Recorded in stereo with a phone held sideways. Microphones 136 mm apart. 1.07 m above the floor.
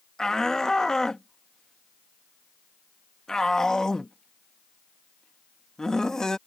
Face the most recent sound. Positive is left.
turn(degrees=5)  # may be behind; listen again after turning